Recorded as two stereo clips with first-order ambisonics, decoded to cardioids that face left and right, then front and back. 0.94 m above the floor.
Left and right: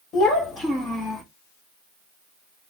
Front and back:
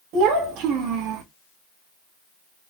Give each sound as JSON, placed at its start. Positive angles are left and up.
{"t": 0.1, "sound": "a child speaking", "azimuth_deg": 150, "distance_m": 1.6}